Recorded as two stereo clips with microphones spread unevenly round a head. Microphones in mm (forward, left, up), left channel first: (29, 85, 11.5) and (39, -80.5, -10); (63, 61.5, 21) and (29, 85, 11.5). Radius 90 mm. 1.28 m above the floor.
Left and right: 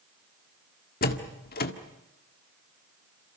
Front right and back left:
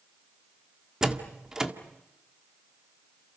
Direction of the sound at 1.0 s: 65° left.